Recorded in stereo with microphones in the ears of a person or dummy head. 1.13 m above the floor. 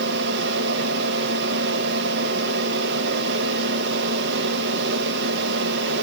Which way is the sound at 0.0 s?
60° right (ahead or behind).